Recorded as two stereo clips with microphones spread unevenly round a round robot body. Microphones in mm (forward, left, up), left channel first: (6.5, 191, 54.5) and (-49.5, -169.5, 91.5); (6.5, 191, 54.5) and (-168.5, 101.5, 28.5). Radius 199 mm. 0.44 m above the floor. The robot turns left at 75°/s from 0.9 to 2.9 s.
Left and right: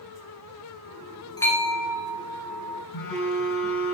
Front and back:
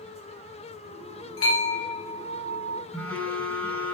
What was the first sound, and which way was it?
A bell, straight ahead.